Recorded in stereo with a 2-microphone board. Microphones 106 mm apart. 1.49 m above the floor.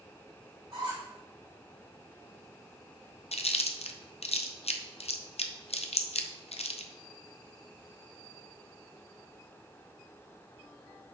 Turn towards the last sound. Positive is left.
turn(degrees=75)  # may be behind; listen again after turning